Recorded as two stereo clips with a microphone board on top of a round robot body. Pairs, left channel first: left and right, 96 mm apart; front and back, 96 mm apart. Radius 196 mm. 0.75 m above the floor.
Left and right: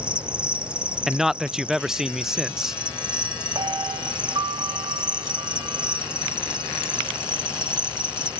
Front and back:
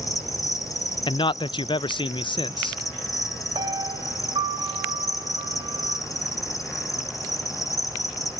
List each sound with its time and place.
0.0 s an insect: 15° right, 1.9 m
1.1 s a man speaking: 5° right, 0.6 m
3.5 s a piano: 135° right, 1.6 m